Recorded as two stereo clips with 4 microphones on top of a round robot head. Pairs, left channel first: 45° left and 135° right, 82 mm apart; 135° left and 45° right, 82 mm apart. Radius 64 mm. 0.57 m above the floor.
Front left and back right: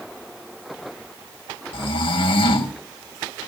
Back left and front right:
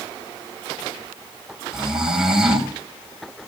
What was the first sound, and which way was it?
Snoring, 40° left.